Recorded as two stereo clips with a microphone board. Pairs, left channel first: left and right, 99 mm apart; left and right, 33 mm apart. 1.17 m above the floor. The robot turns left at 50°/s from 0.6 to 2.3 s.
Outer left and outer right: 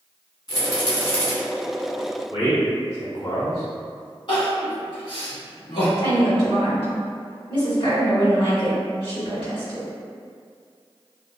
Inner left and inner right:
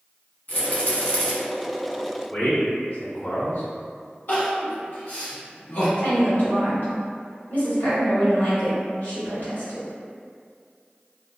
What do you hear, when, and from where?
0.5 s a rattle: 50° left (ahead or behind), 1.1 m; by 1.3 s 20° left (ahead or behind), 1.1 m
2.3 s a man speaking: 80° left, 1.6 m
4.3 s crying: 55° left (ahead or behind), 1.0 m
6.0 s a woman speaking: 60° left (ahead or behind), 1.9 m